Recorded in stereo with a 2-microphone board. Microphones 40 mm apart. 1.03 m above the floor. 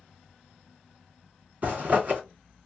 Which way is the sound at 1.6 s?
40° right (ahead or behind).